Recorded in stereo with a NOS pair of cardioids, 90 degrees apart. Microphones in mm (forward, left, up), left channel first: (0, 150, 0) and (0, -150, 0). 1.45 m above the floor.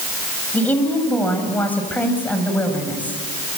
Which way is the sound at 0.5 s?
5° left.